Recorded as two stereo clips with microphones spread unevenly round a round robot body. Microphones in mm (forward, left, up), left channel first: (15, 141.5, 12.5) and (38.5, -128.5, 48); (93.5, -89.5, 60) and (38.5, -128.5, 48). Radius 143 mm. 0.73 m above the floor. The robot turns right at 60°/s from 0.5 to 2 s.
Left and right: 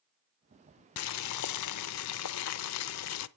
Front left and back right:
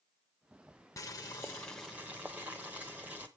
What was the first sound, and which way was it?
Boiling, 65° left.